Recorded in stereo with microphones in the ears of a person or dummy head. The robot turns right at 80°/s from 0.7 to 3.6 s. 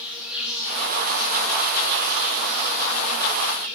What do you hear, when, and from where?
0.0 s an insect: 5° right, 5.5 m; by 3.8 s 135° right, 5.5 m